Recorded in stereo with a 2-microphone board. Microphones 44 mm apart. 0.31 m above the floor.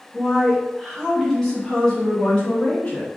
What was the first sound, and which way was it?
A woman speaking, centre (ahead or behind).